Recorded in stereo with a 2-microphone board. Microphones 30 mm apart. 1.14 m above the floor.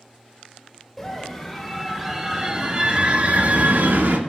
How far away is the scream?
About 3.5 m.